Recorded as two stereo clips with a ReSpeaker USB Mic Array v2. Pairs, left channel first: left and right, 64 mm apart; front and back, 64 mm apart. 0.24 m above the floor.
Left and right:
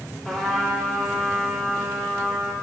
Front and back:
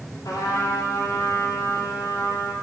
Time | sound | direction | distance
0.2 | a trumpet | 5° left | 6 m